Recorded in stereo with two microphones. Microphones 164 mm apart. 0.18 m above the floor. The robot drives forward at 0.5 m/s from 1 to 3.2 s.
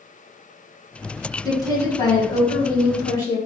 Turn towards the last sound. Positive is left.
turn(degrees=20)  # may be behind; listen again after turning